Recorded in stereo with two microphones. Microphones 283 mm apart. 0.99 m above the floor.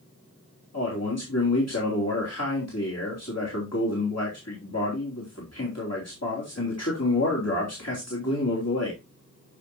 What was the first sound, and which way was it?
A man speaking, 60° left (ahead or behind).